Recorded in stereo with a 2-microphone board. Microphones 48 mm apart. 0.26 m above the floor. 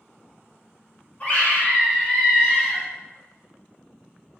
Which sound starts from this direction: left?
A scream, at 1.2 s.